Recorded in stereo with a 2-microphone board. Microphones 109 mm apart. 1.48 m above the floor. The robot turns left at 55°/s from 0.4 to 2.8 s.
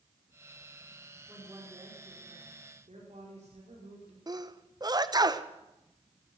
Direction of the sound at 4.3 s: 35° right (ahead or behind).